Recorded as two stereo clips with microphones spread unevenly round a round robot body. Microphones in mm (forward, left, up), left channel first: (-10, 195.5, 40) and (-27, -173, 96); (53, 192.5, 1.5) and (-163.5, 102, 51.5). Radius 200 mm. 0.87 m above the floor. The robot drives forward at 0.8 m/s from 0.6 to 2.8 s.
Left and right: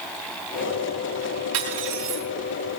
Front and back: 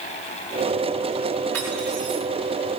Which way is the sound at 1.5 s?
65° right.